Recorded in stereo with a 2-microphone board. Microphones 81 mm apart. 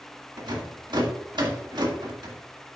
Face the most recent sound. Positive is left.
turn(degrees=-65)  # may be behind; listen again after turning